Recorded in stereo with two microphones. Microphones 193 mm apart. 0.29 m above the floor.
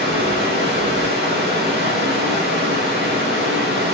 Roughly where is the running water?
Right.